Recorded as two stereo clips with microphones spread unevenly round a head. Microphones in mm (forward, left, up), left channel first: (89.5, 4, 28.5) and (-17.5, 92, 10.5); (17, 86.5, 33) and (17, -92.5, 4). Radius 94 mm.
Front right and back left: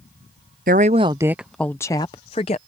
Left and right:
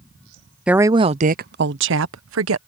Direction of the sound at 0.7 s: 175° right.